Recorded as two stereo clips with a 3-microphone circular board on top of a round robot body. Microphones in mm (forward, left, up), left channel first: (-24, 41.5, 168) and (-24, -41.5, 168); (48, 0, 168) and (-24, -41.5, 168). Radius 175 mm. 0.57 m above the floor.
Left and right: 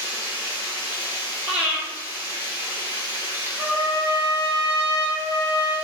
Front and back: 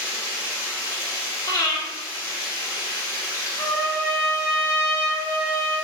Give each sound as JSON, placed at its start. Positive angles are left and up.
{"t": 0.0, "sound": "running water", "azimuth_deg": -25, "distance_m": 1.7}
{"t": 1.5, "sound": "breathing", "azimuth_deg": -15, "distance_m": 1.5}
{"t": 3.6, "sound": "a trumpet", "azimuth_deg": -30, "distance_m": 1.7}